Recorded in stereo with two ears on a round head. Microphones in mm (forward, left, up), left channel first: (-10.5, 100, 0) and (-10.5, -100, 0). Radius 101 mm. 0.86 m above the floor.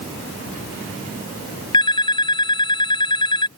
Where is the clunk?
I don't hear a clunk.